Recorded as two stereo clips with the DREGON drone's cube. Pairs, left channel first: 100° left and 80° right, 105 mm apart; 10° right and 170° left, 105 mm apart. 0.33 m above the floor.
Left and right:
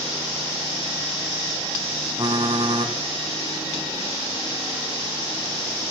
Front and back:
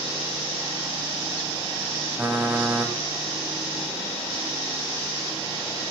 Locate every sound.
2.2 s typing on a keyboard: 115° right, 1.0 m